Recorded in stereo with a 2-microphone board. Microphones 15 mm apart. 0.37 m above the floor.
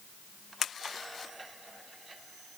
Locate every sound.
Only background noise.